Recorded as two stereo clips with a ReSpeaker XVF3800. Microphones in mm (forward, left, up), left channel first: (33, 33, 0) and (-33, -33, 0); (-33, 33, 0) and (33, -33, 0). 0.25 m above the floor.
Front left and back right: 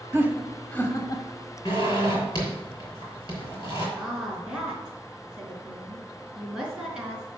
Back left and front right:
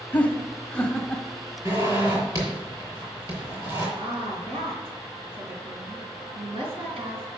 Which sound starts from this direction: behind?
Laughter, at 0.1 s.